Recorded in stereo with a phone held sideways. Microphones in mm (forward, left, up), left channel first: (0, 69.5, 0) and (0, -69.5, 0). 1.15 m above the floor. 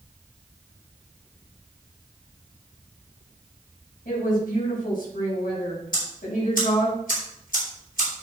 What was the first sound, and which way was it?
A woman speaking, 85° left.